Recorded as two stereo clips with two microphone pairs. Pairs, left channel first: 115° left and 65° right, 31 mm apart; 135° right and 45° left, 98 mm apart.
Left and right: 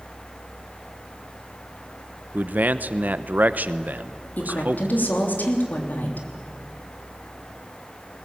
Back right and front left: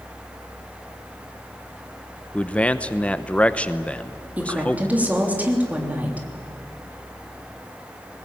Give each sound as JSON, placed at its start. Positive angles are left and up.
{"t": 2.3, "sound": "a man speaking", "azimuth_deg": -60, "distance_m": 0.9}
{"t": 4.4, "sound": "a woman speaking", "azimuth_deg": 120, "distance_m": 3.5}